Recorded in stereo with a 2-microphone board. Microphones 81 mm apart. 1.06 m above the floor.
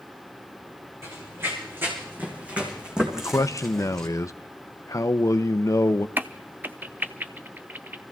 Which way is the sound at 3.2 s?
40° left (ahead or behind).